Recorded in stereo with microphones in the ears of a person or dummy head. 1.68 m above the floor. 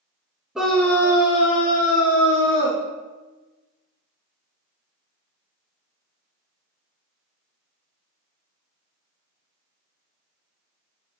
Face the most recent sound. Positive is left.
turn(degrees=65)  # may be behind; listen again after turning